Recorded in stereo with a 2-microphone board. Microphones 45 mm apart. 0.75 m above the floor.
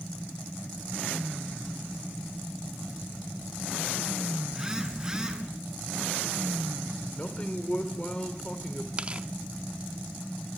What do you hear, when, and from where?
4.5 s a phone buzzing: 15° right (ahead or behind), 6 m
7.2 s a man speaking: 25° left (ahead or behind), 2.5 m
9.0 s tearing paper: 25° right (ahead or behind), 0.9 m